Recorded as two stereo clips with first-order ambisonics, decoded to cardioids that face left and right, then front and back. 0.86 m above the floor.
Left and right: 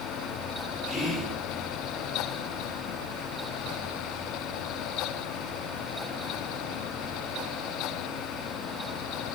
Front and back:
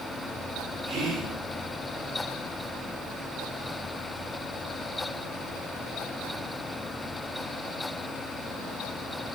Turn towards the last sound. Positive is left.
turn(degrees=170)